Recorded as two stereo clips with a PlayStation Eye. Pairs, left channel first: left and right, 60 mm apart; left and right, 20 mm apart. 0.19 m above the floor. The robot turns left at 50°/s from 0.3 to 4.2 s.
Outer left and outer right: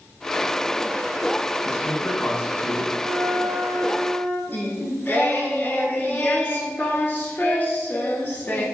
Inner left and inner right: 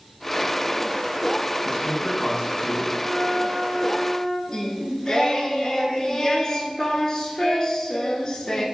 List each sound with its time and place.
1.6 s a man speaking: 20° left (ahead or behind), 1.0 m; by 2.9 s 10° left (ahead or behind), 1.0 m
3.0 s a flute: 110° right, 1.2 m; by 4.4 s 170° right, 1.2 m
4.5 s singing: 35° left (ahead or behind), 0.6 m